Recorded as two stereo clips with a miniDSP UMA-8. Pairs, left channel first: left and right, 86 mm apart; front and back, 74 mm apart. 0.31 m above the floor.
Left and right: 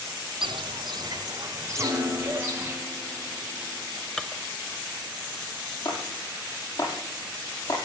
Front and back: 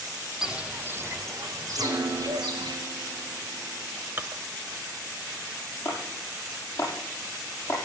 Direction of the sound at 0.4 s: 95° right.